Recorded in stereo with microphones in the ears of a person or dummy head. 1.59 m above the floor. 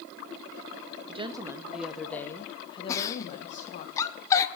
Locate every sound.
1.1 s a woman speaking: 25° right (ahead or behind), 0.9 m; by 3.9 s 50° left (ahead or behind), 1.7 m
2.9 s a giggle: 15° left (ahead or behind), 0.8 m